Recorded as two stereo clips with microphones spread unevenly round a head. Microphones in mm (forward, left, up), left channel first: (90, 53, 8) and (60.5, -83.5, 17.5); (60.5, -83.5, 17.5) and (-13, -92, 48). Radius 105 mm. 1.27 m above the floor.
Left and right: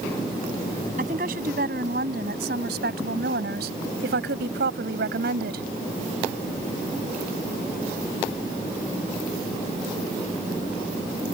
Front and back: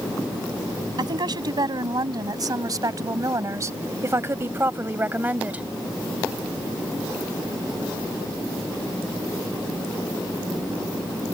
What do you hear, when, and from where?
1.0 s a woman speaking: 155° right; by 5.7 s 105° right